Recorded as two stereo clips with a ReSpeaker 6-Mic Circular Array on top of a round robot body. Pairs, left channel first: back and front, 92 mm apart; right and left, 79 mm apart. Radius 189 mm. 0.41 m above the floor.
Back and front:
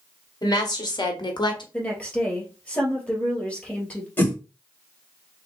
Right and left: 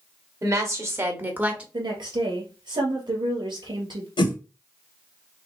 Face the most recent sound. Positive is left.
turn(degrees=-110)